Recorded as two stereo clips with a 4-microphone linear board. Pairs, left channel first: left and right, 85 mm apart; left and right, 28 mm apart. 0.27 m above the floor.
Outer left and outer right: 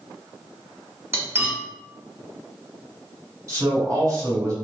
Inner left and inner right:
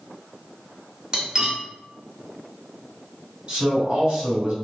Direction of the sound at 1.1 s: 30° right (ahead or behind).